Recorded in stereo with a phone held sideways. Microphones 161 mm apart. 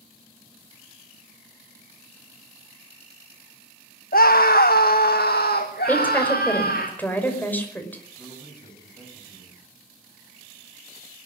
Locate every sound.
4.1 s a scream: 65° left (ahead or behind), 1.1 m; by 6.9 s 75° left (ahead or behind), 3 m
5.9 s a woman speaking: 10° left (ahead or behind), 5.5 m
8.2 s a man speaking: 25° left (ahead or behind), 9 m